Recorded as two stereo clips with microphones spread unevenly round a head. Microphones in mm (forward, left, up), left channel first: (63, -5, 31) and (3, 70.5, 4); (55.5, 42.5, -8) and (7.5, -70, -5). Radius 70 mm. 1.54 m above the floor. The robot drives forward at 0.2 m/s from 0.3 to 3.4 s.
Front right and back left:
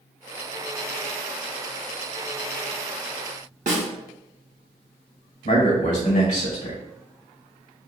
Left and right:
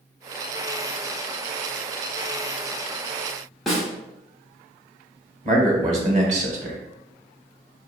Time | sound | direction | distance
3.7 | a snare drum | 155° left | 0.6 m
5.5 | a man speaking | 80° right | 1.0 m